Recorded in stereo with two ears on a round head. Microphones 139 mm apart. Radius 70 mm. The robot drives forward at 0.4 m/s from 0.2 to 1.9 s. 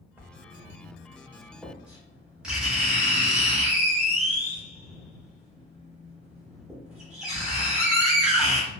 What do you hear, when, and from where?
0.2 s writing: 15° right (ahead or behind), 0.5 m; by 8.7 s 5° right (ahead or behind), 1.2 m